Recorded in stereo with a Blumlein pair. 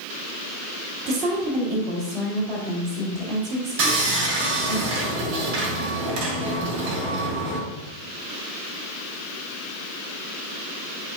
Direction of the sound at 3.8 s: 50° right.